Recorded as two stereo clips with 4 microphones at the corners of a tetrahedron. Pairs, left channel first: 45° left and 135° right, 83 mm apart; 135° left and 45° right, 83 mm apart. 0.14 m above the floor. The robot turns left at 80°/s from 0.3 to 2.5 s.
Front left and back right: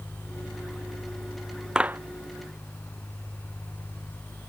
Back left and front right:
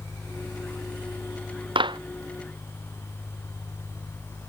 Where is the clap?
55° right; by 2.0 s 75° right.